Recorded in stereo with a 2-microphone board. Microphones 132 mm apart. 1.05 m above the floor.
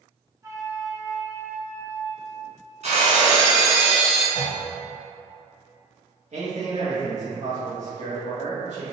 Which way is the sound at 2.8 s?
60° right (ahead or behind).